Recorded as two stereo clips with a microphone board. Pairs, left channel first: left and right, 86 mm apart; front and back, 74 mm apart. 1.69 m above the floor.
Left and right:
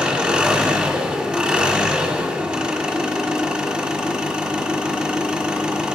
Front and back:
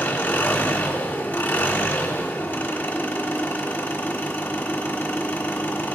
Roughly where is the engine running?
Ahead right.